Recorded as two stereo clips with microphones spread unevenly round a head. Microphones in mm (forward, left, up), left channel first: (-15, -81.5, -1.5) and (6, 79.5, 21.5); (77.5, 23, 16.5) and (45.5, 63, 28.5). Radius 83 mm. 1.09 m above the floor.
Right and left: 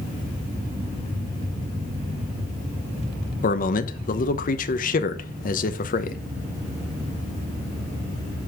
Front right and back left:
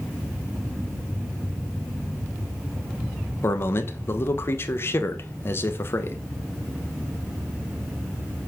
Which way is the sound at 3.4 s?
75° right.